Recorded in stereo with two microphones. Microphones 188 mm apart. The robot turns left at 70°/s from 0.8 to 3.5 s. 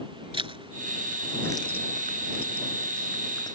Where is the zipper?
25° right (ahead or behind); by 3.5 s 20° left (ahead or behind).